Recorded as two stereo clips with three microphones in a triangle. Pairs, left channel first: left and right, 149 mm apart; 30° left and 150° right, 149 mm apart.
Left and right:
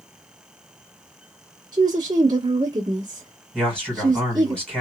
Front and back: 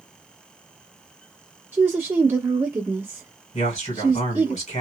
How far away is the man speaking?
About 2.0 m.